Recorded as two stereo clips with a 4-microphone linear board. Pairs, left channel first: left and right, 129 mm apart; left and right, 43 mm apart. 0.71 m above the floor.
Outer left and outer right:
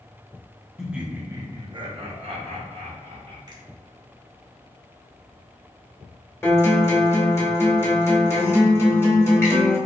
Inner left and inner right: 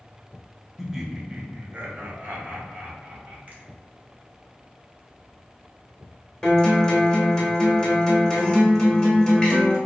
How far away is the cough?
I don't hear a cough.